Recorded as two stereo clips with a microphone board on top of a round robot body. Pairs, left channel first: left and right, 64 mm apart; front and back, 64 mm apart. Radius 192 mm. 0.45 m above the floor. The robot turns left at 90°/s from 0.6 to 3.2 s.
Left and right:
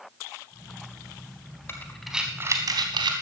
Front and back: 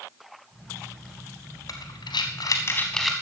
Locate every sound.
1.7 s breathing: 35° left, 0.6 m; by 3.1 s 95° right, 0.6 m